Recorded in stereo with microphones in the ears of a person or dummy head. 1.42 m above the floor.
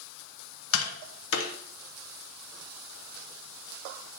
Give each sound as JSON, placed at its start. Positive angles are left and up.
{"t": 0.7, "sound": "tapping", "side_deg": 75, "distance_m": 1.3}